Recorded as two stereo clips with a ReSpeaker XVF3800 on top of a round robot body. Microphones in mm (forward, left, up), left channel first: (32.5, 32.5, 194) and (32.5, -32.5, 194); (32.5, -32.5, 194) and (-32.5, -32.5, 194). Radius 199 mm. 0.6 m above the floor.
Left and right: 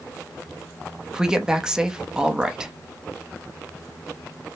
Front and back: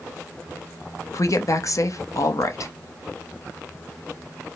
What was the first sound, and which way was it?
A woman speaking, 15° right.